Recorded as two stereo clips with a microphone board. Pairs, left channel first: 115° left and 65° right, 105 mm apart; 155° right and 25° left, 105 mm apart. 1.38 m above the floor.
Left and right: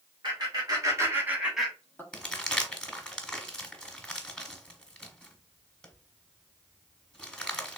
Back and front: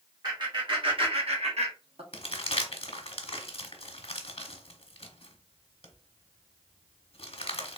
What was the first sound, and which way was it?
Laughter, 20° right.